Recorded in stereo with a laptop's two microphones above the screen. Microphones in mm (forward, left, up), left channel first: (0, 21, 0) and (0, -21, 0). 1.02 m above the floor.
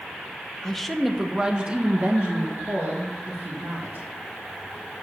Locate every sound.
0.6 s a woman speaking: 15° left (ahead or behind), 0.8 m; by 4.1 s 50° right (ahead or behind), 2 m